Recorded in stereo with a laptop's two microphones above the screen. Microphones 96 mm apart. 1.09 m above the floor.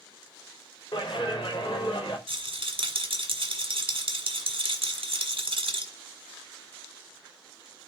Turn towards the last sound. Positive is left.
turn(degrees=-65)  # may be behind; listen again after turning